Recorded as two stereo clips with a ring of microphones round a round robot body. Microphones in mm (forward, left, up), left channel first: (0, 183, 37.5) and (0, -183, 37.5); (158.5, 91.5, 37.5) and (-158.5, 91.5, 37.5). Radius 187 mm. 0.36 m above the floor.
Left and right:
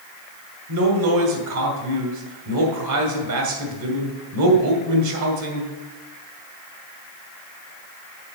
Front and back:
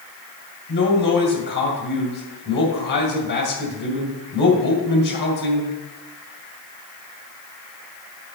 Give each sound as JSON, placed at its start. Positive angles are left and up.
{"t": 0.7, "sound": "a man speaking", "azimuth_deg": -55, "distance_m": 2.5}